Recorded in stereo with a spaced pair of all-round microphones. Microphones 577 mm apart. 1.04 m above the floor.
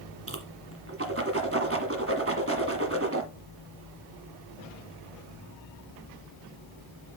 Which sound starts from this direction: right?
A whoosh, at 0.3 s.